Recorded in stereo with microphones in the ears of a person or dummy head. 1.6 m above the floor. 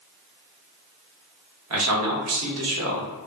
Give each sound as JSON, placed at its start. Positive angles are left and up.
{"t": 1.7, "sound": "a man speaking", "side_deg": -75, "distance_m": 0.9}